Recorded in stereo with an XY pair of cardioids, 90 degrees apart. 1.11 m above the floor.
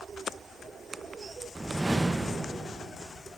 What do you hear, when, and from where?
1.6 s a whoosh: 25° right, 0.6 m